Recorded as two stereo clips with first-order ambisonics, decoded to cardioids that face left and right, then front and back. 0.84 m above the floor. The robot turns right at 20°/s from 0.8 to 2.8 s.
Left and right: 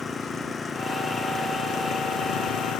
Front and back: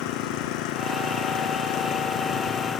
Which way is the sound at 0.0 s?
15° left.